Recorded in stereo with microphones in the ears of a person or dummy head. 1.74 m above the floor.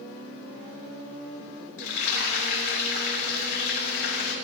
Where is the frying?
60° left (ahead or behind), 6.5 m.